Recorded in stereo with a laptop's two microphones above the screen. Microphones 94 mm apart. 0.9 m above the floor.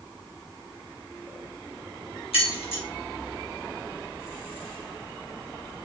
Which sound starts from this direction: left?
Keys jangling, at 2.3 s.